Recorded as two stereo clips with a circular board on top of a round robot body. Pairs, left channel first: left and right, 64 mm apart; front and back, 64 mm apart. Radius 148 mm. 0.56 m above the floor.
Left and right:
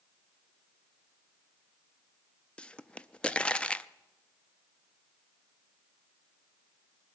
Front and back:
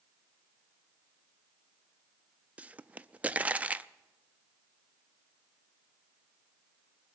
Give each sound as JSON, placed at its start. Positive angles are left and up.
{"t": 2.6, "sound": "a pop", "azimuth_deg": 140, "distance_m": 0.6}